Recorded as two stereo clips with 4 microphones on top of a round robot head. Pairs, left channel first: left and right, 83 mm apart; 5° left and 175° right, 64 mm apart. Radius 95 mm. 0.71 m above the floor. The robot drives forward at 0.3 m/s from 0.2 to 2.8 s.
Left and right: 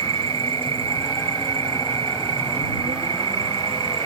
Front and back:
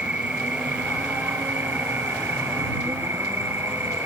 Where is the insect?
95° right; by 4.1 s 110° right.